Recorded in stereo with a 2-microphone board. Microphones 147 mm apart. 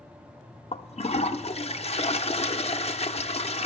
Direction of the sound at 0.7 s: 45° left (ahead or behind).